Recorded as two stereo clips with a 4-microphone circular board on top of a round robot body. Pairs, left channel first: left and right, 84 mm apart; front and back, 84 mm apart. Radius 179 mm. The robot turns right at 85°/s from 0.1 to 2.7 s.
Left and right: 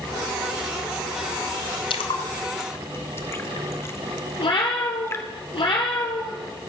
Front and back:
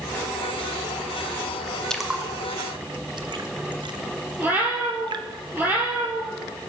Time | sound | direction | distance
1.9 | a splash | 80° left | 0.9 m
4.4 | a cat meowing | 110° left | 3 m